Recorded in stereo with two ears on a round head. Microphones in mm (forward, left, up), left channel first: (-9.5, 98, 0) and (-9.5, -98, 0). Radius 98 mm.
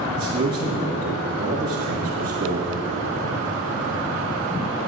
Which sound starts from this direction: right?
A man speaking, at 0.2 s.